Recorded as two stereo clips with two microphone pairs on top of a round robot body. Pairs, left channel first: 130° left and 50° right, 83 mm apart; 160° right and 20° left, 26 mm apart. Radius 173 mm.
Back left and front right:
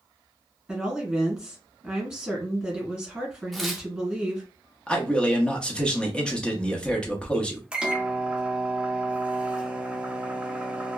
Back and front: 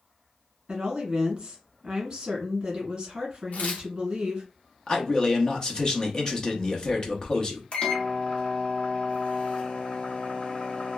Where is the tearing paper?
145° right, 0.8 m.